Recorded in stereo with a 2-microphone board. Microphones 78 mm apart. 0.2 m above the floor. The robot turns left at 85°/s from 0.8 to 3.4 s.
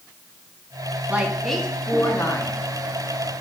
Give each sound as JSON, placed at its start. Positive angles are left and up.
{"t": 1.1, "sound": "a woman speaking", "azimuth_deg": -145, "distance_m": 2.0}